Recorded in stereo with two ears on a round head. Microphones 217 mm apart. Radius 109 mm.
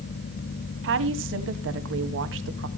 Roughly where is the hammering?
No hammering in this recording.